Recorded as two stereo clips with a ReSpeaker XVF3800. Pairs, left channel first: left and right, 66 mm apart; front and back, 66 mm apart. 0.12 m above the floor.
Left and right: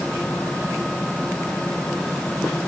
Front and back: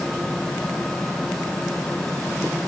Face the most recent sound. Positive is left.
No sound to turn to.